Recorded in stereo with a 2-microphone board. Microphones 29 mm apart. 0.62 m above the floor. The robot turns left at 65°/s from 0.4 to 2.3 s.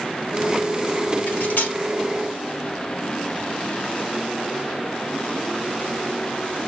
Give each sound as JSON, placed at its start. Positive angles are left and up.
{"t": 1.3, "sound": "cutlery clinking", "side_deg": 80, "distance_m": 0.8}